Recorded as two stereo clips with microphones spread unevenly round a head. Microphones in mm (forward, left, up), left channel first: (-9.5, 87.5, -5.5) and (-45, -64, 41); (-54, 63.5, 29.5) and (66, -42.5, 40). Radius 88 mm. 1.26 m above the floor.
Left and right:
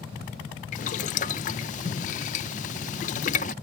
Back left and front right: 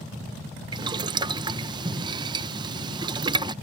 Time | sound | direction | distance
0.7 | boiling | 20° left | ?